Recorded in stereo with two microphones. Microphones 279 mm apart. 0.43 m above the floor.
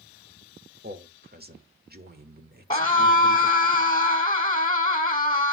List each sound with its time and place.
0.8 s a man speaking: 35° right (ahead or behind), 1.5 m
2.7 s a scream: 15° left (ahead or behind), 1.2 m